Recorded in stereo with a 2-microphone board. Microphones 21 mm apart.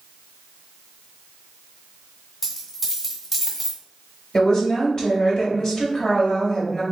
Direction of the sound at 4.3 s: 30° left (ahead or behind).